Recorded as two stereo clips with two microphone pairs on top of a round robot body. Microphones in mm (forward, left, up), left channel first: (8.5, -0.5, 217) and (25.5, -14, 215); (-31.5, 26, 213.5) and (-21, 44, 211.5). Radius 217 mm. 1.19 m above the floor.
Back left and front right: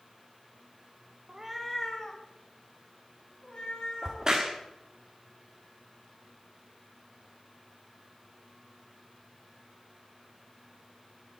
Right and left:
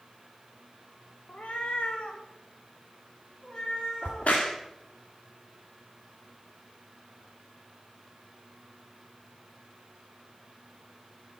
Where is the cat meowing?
85° right, 0.6 m; by 4.4 s 165° right, 5 m.